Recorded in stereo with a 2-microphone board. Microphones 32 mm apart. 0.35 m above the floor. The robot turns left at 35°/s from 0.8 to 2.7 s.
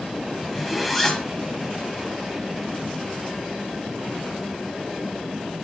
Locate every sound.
0.4 s a zipper: centre (ahead or behind), 1.0 m; by 1.3 s 15° left (ahead or behind), 1.0 m